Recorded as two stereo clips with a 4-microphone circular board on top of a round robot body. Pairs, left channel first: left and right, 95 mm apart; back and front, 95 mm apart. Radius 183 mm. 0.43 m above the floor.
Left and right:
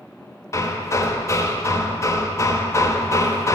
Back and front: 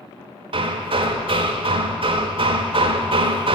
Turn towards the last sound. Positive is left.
turn(degrees=30)